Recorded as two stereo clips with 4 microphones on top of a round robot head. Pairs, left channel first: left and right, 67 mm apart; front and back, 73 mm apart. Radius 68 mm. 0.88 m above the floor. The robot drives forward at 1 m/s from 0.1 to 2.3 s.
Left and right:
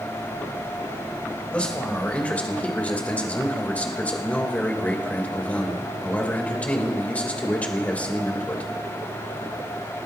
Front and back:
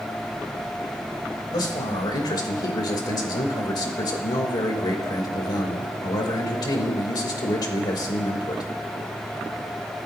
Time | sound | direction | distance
1.5 | a man speaking | 20° left | 4 m